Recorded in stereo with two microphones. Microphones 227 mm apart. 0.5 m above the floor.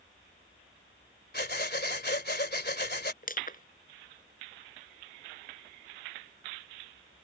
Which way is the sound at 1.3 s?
50° left (ahead or behind).